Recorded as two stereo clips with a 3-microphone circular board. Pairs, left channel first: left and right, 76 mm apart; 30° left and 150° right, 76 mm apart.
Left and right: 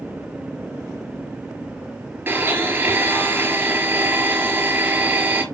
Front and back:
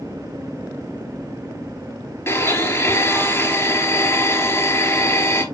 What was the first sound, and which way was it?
A blender, 25° right.